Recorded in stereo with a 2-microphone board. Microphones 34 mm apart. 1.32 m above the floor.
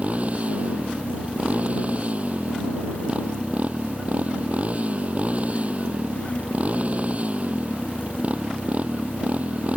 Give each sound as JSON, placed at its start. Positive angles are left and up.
{"t": 0.0, "sound": "a motorcycle", "side_deg": -40}